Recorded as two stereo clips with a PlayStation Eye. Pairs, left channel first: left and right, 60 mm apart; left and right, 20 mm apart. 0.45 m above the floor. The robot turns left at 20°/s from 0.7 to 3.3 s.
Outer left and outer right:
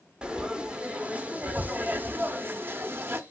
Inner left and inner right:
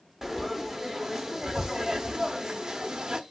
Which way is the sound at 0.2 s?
30° right.